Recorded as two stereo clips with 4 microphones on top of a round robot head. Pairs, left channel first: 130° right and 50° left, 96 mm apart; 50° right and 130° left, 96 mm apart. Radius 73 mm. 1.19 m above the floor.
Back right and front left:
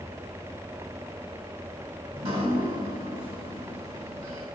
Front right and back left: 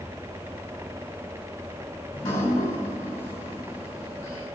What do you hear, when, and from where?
2.1 s dripping: 10° left, 4 m